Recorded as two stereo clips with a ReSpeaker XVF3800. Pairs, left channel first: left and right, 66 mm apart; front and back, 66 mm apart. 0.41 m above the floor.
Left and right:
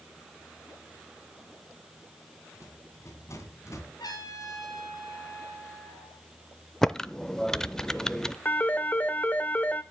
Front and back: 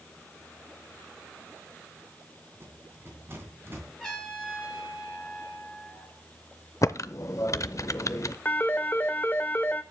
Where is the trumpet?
85° left, 4 m.